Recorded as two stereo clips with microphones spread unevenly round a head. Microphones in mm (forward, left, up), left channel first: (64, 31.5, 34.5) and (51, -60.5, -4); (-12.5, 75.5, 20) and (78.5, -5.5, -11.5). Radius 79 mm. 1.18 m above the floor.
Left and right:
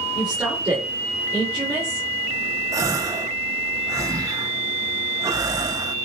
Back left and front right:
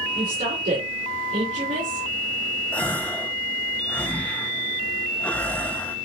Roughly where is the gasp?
Behind right.